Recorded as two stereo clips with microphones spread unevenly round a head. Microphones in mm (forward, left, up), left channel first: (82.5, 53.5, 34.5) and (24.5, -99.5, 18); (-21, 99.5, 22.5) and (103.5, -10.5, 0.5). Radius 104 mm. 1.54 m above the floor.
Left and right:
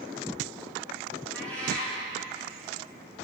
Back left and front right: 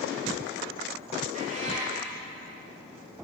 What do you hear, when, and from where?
1.3 s a cat meowing: 5° right, 1.4 m